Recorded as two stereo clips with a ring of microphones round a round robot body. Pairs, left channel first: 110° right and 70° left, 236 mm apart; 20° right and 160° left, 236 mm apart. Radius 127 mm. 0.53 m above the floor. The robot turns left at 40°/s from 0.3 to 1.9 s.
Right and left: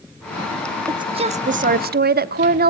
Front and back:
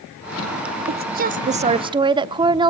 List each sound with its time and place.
0.9 s a woman speaking: 135° left, 0.9 m; by 2.7 s 95° left, 0.9 m